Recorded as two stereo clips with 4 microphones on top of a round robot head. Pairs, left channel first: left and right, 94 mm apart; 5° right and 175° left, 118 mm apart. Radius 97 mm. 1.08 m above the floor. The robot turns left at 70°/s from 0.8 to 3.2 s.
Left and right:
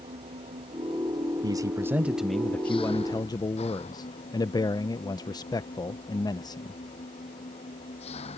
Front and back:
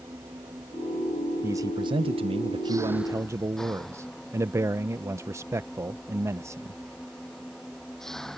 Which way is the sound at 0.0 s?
110° right.